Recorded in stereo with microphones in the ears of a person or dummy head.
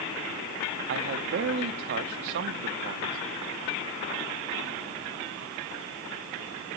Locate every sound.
0.9 s a man speaking: 55° right (ahead or behind), 0.5 m